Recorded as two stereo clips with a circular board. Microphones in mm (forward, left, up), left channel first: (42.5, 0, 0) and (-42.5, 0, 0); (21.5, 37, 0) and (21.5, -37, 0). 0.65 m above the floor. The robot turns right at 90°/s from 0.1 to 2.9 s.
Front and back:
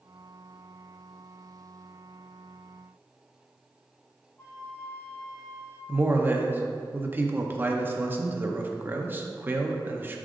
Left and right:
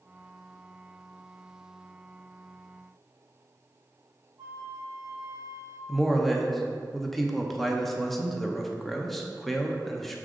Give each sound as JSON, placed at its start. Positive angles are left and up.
{"t": 4.4, "sound": "a flute", "azimuth_deg": -65, "distance_m": 1.7}
{"t": 5.9, "sound": "a man speaking", "azimuth_deg": 175, "distance_m": 0.6}